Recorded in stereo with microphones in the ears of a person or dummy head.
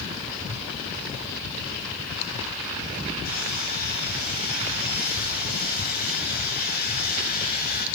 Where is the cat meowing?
I don't hear a cat meowing.